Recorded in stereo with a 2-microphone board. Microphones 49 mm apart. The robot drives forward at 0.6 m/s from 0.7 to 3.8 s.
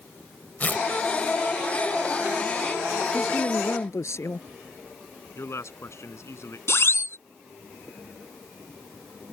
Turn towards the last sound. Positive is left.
turn(degrees=55)  # may be behind; listen again after turning